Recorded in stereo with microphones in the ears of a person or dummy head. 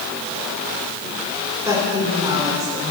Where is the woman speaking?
10° right (ahead or behind), 5 m; by 2.9 s 20° right (ahead or behind), 5.5 m.